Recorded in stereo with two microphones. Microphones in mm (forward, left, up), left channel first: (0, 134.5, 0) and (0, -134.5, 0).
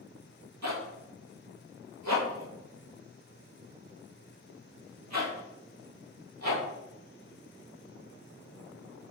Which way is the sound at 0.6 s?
85° right.